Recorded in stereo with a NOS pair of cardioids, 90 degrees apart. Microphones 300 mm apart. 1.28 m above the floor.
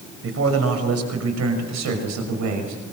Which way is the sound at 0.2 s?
45° right.